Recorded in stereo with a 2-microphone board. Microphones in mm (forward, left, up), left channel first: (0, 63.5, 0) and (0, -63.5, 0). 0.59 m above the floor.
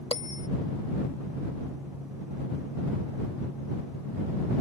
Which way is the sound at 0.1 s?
50° left (ahead or behind).